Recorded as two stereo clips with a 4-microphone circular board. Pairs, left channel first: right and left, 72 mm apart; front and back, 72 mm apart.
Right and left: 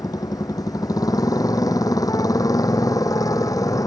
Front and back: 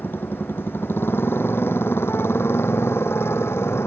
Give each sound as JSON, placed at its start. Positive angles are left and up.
{"t": 0.0, "sound": "a motorcycle", "azimuth_deg": -60}